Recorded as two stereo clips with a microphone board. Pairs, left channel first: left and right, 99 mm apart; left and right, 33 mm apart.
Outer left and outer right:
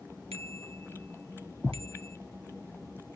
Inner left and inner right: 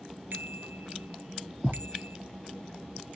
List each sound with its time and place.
0.3 s a bicycle bell: 75° right (ahead or behind)